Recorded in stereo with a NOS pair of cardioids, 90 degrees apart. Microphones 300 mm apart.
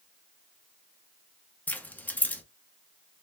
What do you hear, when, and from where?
1.7 s keys jangling: 5° left, 0.7 m